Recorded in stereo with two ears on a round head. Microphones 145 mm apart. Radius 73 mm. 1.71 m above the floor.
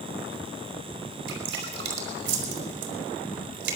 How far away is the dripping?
About 5 m.